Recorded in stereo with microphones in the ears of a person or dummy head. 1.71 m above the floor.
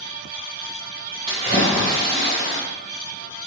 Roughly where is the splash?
Right.